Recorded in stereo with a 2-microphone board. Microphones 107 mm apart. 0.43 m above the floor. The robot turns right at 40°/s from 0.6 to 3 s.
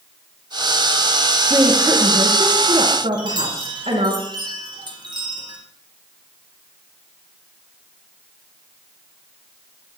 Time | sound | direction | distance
1.5 | a woman speaking | 155° right | 5 m
3.1 | a chime | 45° right (ahead or behind) | 3.5 m